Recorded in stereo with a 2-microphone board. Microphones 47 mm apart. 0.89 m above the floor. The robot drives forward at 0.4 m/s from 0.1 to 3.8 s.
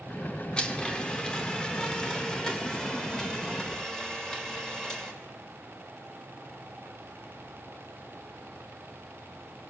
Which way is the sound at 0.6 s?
20° left (ahead or behind).